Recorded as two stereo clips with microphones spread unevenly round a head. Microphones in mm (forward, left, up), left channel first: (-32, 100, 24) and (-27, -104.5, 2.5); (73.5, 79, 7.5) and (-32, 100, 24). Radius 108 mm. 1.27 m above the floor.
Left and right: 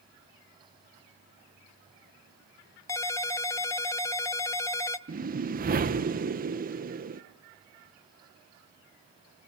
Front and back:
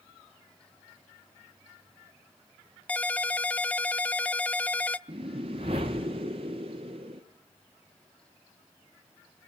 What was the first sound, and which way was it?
A ringtone, 70° left.